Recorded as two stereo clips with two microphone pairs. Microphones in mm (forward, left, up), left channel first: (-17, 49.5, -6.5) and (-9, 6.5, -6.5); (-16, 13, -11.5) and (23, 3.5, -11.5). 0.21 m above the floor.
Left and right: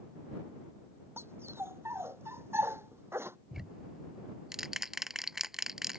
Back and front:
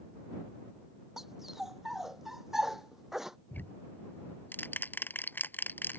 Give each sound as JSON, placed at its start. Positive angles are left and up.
{"t": 1.2, "sound": "a dog barking", "azimuth_deg": -90}
{"t": 3.5, "sound": "ticking", "azimuth_deg": -160}